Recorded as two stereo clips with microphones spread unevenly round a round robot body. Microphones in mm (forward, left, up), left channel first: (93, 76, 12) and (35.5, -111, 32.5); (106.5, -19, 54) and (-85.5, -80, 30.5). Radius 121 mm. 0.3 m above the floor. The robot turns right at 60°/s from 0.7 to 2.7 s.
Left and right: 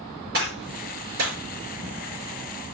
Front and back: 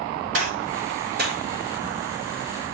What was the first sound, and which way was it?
A gunshot, 155° right.